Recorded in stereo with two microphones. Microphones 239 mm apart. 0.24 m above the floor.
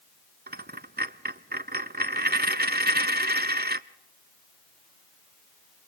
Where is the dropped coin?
45° right (ahead or behind), 0.5 m.